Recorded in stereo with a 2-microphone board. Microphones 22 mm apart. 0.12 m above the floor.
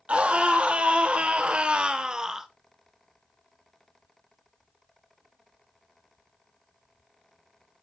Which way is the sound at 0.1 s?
65° right (ahead or behind).